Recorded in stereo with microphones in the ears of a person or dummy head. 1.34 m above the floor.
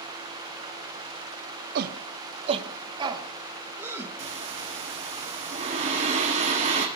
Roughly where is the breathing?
Right.